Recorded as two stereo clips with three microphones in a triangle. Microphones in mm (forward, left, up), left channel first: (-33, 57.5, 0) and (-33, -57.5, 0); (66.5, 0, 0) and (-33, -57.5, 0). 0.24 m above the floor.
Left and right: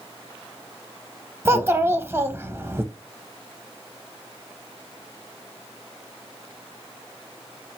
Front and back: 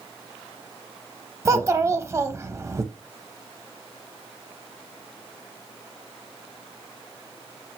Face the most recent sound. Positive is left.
turn(degrees=-130)